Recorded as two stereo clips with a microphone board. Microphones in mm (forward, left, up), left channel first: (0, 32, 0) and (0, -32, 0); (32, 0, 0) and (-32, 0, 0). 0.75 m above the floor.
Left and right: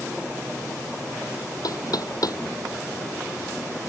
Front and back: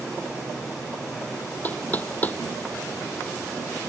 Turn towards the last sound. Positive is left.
turn(degrees=65)